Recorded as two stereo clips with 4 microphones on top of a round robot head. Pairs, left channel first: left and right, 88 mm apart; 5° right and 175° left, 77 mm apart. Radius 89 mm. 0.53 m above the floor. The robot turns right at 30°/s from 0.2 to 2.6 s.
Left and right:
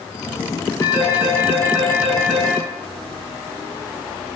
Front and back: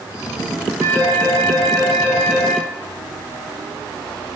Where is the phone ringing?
130° left, 4 m; by 2.6 s 175° right, 4 m.